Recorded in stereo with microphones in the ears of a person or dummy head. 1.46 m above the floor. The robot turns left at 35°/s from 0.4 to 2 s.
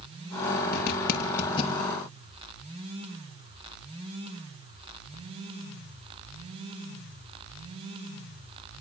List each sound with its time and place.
0.7 s a zipper: 65° left (ahead or behind), 5.5 m; by 1.8 s 30° left (ahead or behind), 5.5 m